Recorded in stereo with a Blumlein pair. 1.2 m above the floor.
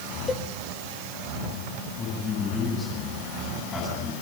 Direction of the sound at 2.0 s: 20° left.